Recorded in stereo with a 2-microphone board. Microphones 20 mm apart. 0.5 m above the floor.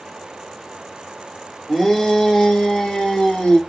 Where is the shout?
25° left (ahead or behind), 1.3 m; by 3.6 s 60° left (ahead or behind), 1.9 m.